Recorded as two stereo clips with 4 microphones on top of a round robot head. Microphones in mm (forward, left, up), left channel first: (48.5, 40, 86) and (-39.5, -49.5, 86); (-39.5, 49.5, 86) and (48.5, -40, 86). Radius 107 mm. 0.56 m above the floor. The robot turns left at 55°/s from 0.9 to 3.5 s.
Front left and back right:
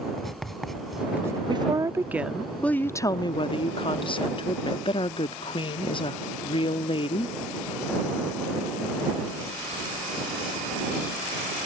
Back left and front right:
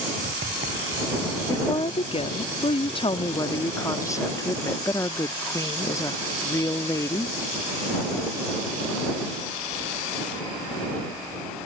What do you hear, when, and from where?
0.2 s writing: 40° right; by 1.4 s 70° right
1.5 s a woman speaking: 170° right; by 7.3 s 75° left